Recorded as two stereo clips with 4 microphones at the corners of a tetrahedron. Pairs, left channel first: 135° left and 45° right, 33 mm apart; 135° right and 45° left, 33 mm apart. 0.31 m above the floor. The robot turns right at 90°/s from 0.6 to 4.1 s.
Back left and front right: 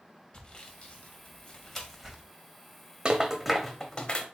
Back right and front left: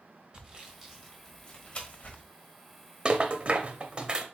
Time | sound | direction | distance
0.3 | sawing | 95° left | 1.2 m
3.0 | a rattle | straight ahead | 0.6 m